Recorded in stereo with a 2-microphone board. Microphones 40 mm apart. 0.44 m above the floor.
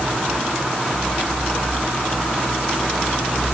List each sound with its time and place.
Only background noise.